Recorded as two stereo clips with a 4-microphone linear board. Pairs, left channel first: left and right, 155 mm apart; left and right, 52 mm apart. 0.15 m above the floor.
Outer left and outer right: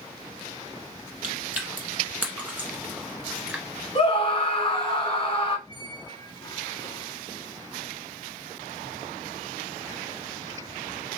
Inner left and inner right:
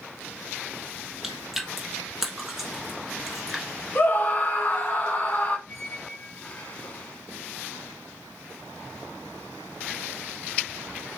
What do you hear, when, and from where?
1.2 s chewing: 10° right (ahead or behind), 1.1 m
4.0 s a scream: 40° left (ahead or behind), 1.4 m
5.7 s a squeak: 25° left (ahead or behind), 0.6 m